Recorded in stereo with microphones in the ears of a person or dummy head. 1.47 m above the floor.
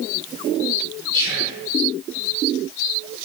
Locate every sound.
1.1 s whispering: 35° right (ahead or behind), 4 m